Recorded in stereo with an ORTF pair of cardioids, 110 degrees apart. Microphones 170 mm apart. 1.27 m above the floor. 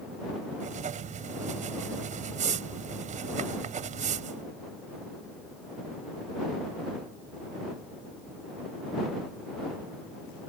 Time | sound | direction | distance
0.6 | writing | 50° right | ?